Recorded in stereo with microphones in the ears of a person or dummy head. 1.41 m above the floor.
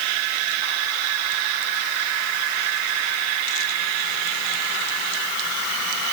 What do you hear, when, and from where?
Only background noise.